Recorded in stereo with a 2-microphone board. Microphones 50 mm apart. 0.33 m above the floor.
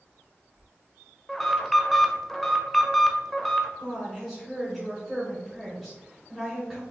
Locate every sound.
1.3 s an alarm: 5° left (ahead or behind), 0.5 m
3.8 s a woman speaking: centre (ahead or behind), 1.1 m